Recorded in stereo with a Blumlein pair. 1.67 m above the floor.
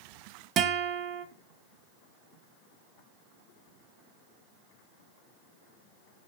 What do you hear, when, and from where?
0.6 s a guitar: 30° right, 0.6 m